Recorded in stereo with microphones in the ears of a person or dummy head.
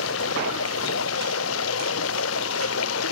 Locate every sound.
0.0 s running water: 80° left